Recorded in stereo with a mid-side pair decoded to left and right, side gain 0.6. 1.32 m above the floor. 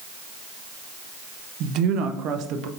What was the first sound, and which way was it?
A woman speaking, 65° right.